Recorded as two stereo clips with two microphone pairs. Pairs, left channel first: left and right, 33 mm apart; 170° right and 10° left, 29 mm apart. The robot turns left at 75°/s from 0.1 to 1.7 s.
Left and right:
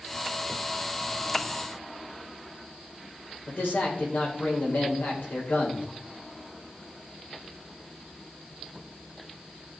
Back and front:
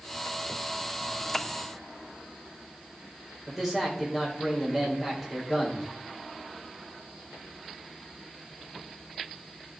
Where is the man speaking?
95° left, 3.5 m.